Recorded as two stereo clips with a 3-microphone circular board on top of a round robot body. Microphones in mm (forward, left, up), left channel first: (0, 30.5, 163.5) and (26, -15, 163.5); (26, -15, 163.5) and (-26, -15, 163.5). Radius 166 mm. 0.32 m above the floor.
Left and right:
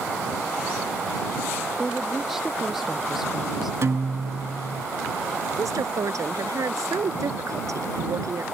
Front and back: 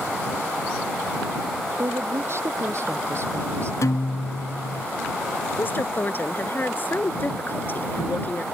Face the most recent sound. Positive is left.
turn(degrees=-50)